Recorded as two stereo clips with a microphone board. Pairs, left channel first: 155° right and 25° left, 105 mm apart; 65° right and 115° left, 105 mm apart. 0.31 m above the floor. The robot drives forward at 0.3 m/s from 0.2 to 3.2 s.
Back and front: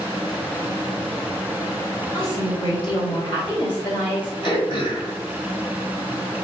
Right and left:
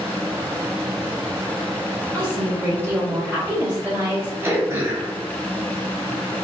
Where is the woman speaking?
175° right, 1.9 m.